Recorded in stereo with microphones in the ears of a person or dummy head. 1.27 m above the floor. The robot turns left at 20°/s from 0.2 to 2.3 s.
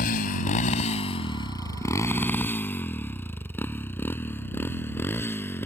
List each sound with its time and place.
0.0 s a motorcycle: 50° left (ahead or behind); by 5.7 s 15° left (ahead or behind)